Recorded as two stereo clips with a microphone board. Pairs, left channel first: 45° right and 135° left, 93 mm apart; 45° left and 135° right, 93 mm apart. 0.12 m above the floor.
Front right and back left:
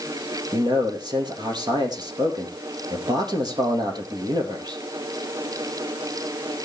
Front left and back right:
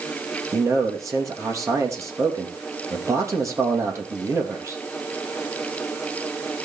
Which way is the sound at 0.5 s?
170° left.